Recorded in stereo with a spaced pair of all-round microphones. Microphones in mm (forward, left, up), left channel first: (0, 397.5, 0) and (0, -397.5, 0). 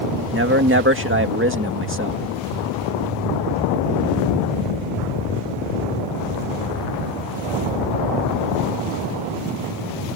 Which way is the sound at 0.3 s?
15° right (ahead or behind).